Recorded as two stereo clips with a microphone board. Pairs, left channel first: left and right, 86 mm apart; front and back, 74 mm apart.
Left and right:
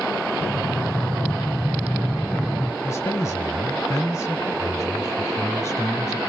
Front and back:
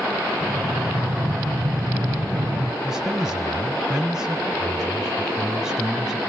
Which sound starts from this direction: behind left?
Breathing, at 0.4 s.